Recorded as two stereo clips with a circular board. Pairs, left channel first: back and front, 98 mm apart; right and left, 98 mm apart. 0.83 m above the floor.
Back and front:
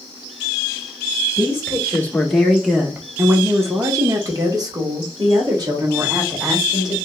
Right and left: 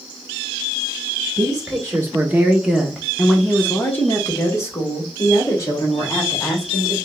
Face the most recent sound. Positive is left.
turn(degrees=-40)